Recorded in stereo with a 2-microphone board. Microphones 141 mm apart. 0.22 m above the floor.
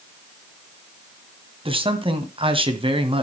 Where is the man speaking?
40° right (ahead or behind), 1.7 m.